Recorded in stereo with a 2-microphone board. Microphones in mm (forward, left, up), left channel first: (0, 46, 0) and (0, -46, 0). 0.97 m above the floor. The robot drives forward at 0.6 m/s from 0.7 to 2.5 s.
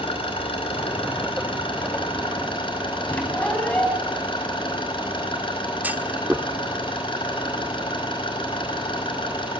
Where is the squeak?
15° left (ahead or behind), 4.5 m.